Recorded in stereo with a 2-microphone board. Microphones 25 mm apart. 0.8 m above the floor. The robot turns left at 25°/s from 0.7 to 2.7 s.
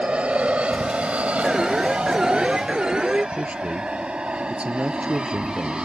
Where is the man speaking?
65° right (ahead or behind).